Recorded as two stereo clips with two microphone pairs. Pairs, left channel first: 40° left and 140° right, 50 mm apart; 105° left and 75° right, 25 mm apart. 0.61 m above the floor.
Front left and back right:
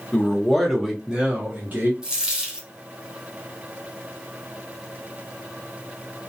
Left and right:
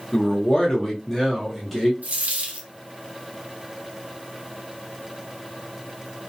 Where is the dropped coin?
60° right, 0.7 m.